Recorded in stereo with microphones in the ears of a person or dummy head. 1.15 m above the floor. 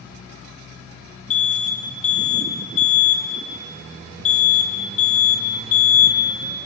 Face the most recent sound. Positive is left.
turn(degrees=40)  # may be behind; listen again after turning